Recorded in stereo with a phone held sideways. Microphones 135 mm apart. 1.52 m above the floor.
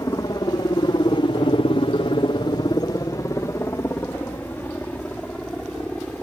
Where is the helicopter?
25° left (ahead or behind); by 6.2 s 5° left (ahead or behind).